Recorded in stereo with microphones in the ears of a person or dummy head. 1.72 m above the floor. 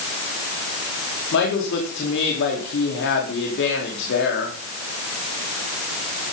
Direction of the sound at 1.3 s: 55° left (ahead or behind).